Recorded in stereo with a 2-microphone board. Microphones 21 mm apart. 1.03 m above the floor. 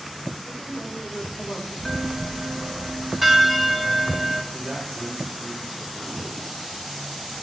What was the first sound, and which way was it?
A woman speaking, 35° left (ahead or behind).